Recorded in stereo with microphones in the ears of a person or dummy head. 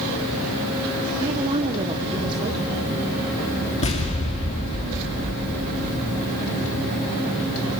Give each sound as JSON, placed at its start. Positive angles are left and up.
{"t": 1.2, "sound": "a woman speaking", "side_deg": -30, "distance_m": 1.2}
{"t": 3.8, "sound": "an explosion", "side_deg": 35, "distance_m": 2.5}